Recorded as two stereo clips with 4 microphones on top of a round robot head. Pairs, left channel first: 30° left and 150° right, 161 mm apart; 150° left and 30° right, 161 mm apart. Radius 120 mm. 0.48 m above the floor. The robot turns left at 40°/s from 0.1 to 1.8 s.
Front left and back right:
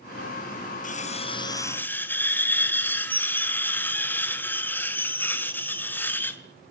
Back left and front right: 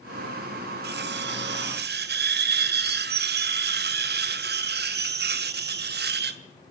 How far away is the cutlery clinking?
About 2.5 m.